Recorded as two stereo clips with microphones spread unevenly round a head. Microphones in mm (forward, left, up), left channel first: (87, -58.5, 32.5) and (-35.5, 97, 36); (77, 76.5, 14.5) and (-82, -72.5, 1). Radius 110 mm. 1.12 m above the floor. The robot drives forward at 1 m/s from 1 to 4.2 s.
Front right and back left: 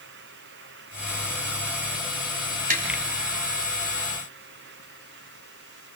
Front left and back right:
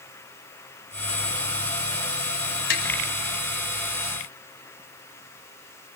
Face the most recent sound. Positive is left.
turn(degrees=105)